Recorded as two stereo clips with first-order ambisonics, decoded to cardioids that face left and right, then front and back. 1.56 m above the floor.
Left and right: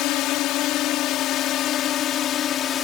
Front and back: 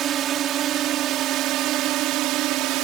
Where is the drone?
125° left; by 2.8 s 145° left.